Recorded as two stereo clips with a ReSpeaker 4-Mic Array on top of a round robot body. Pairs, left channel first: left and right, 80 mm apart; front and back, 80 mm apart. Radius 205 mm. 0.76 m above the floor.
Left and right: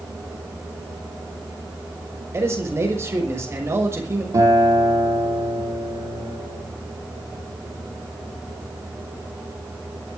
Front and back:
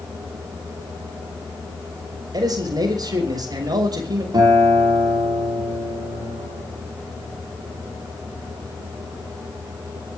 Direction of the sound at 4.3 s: 140° right.